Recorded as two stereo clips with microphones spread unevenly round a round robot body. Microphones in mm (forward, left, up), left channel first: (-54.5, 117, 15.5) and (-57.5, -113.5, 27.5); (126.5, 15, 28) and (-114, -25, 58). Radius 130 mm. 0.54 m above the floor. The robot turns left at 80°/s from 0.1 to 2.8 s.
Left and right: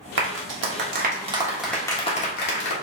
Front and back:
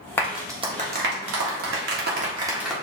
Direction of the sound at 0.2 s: 65° right.